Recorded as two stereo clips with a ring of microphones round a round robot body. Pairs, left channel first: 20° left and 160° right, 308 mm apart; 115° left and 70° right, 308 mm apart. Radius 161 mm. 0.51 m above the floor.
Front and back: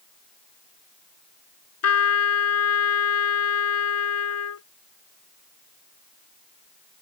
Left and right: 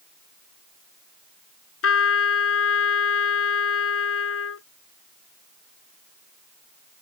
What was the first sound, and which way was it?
A trumpet, 65° left.